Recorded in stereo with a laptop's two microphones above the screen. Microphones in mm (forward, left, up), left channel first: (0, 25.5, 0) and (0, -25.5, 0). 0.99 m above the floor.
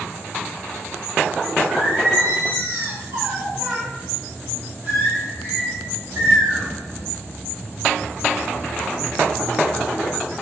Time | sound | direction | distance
1.7 | singing | 60° right (ahead or behind) | 0.8 m